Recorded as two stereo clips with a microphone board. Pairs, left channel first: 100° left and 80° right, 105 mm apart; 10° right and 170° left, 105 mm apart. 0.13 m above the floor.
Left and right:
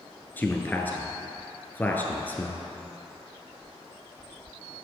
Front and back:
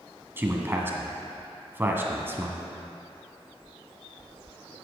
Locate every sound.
0.4 s a man speaking: 140° left, 1.3 m